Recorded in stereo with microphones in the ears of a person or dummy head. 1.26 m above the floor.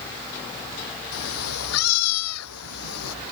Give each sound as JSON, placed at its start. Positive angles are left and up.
{"t": 1.1, "sound": "a cat meowing", "side_deg": 80}